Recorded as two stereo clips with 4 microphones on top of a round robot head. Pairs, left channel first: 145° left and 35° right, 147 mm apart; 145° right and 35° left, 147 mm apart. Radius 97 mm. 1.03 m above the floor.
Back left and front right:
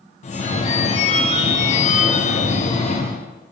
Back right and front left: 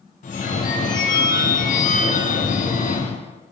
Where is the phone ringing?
175° right, 0.5 m.